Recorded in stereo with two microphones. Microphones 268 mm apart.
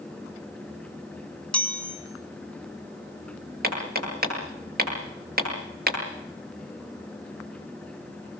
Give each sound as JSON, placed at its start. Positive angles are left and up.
{"t": 1.5, "sound": "a chime", "side_deg": 5, "distance_m": 6.5}
{"t": 3.6, "sound": "hammering", "side_deg": -35, "distance_m": 9.0}